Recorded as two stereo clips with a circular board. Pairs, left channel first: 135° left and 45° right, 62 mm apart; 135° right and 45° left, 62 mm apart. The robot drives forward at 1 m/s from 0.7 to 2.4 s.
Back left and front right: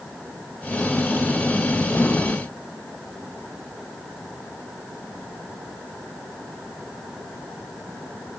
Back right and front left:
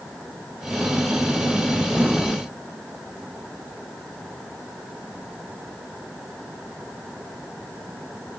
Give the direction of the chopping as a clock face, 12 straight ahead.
I don't hear chopping.